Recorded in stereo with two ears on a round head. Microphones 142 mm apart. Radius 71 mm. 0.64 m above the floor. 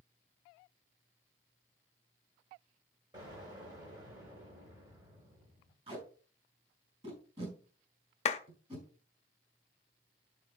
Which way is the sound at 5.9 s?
35° right (ahead or behind).